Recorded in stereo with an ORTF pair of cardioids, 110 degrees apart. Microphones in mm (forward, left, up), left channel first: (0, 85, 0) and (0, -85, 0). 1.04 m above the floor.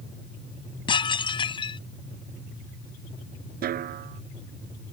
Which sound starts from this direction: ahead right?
A snare drum, at 3.6 s.